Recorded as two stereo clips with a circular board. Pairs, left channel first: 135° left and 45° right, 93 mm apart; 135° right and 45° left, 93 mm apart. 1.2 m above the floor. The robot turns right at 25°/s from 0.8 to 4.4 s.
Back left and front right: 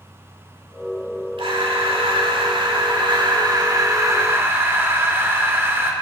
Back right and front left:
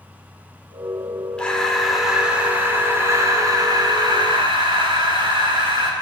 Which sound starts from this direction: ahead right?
Breathing, at 1.4 s.